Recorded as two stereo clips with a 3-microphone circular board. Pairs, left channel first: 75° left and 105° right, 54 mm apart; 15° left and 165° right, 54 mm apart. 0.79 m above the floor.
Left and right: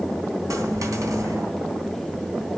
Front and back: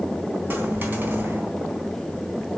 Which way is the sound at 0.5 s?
110° right.